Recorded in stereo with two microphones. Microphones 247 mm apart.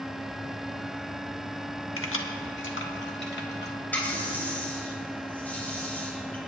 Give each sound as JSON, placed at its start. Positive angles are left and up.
{"t": 2.0, "sound": "keys jangling", "side_deg": 60, "distance_m": 1.1}
{"t": 3.9, "sound": "a running tap", "side_deg": 5, "distance_m": 4.5}